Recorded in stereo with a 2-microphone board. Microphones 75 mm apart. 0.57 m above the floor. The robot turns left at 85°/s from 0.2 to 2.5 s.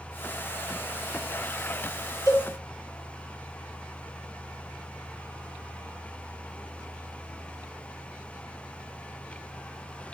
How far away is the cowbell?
About 1.2 m.